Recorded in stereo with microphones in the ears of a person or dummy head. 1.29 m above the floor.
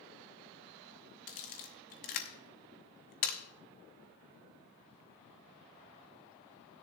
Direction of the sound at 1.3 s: 30° left (ahead or behind).